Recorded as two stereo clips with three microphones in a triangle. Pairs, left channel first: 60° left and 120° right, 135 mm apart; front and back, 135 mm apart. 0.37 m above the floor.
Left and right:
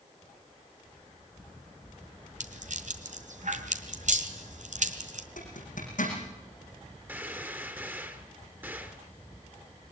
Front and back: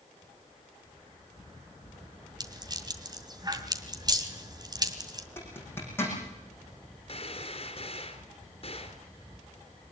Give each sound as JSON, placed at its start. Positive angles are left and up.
{"t": 2.4, "sound": "a rattle", "azimuth_deg": -125, "distance_m": 2.0}
{"t": 5.4, "sound": "a zipper", "azimuth_deg": 75, "distance_m": 8.0}
{"t": 7.1, "sound": "a gunshot", "azimuth_deg": -45, "distance_m": 2.5}